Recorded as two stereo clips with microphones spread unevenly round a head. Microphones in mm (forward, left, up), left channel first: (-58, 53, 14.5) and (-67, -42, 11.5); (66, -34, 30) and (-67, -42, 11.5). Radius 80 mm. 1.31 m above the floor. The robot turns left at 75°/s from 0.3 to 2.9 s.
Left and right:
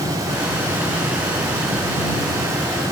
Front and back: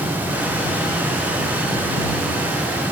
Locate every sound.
Only background noise.